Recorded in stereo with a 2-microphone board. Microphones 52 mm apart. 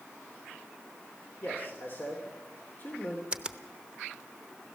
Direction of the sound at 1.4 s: 45° left (ahead or behind).